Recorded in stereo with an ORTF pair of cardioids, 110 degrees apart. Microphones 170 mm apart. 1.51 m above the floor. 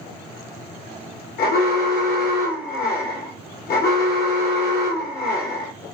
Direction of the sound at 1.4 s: 65° left.